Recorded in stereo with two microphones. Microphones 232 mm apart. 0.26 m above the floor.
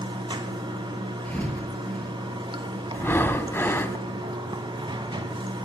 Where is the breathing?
10° left (ahead or behind), 0.6 m.